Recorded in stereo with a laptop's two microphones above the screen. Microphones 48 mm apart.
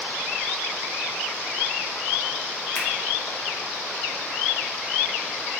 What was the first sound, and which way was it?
A finger snap, 45° left (ahead or behind).